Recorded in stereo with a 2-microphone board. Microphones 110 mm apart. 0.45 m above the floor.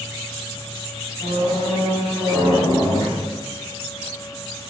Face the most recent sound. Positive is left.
turn(degrees=45)  # may be behind; listen again after turning